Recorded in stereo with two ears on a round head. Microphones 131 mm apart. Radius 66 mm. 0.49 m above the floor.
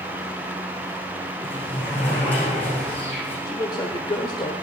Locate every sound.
1.4 s a sliding door: 15° left (ahead or behind), 7 m
3.5 s a man speaking: 30° left (ahead or behind), 1.3 m